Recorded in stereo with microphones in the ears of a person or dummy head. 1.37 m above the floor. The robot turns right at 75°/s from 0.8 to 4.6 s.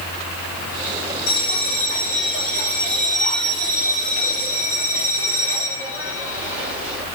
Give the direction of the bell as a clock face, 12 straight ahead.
9 o'clock.